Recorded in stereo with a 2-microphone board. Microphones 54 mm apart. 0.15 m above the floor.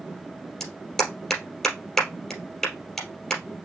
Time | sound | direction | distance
0.6 | a clap | 10° left (ahead or behind) | 3 m